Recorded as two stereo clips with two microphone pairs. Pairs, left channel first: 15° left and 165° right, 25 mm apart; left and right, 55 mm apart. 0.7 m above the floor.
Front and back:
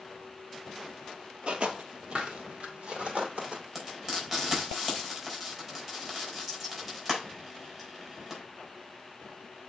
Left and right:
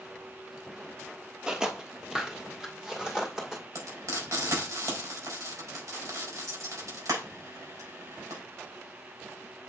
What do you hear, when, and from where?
1.5 s footsteps: 165° right, 1.1 m; by 3.6 s 170° right, 2.5 m
3.8 s frying: 100° right, 4.5 m